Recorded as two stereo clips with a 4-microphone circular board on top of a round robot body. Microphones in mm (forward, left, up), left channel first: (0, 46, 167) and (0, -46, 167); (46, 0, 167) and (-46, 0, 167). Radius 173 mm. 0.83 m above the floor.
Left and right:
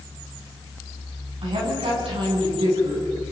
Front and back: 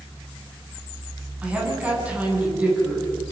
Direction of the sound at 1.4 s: 105° right.